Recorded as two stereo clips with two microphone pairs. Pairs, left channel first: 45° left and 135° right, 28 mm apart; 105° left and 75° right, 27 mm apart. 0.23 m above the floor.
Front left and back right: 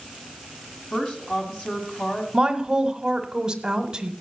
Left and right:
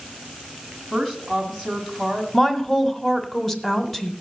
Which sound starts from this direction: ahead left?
A woman speaking, at 0.9 s.